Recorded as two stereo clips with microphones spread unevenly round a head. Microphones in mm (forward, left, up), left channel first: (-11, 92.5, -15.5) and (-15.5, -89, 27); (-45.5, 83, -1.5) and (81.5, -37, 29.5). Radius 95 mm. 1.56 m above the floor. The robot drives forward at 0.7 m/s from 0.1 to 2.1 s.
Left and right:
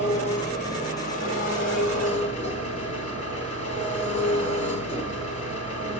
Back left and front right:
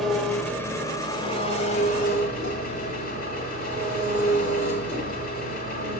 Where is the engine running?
35° left, 1.5 m; by 6.0 s 135° left, 1.4 m.